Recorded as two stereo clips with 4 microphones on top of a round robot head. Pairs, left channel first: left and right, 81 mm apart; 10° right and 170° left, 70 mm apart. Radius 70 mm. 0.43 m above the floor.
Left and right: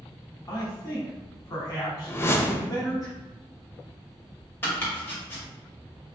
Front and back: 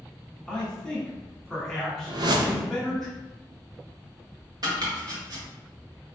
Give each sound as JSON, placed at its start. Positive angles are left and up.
{"t": 0.5, "sound": "a man speaking", "azimuth_deg": 75, "distance_m": 1.4}
{"t": 2.1, "sound": "a whoosh", "azimuth_deg": 150, "distance_m": 0.6}
{"t": 4.6, "sound": "chopping", "azimuth_deg": 150, "distance_m": 1.5}